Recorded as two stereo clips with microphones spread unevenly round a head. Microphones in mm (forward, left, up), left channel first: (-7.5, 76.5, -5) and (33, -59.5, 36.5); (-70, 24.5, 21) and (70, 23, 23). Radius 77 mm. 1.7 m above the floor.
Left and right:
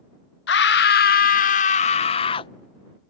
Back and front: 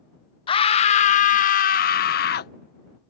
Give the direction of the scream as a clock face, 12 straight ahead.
8 o'clock.